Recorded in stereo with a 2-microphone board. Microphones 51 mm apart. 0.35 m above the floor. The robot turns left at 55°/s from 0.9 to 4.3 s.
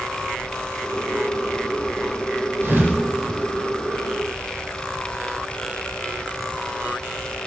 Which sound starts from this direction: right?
A thud, at 2.6 s.